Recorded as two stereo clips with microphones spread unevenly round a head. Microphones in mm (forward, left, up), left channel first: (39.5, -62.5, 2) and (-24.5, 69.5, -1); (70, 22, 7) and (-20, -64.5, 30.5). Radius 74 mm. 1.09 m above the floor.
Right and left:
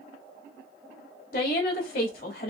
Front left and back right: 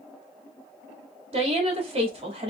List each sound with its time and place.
1.3 s a woman speaking: 95° right, 1.7 m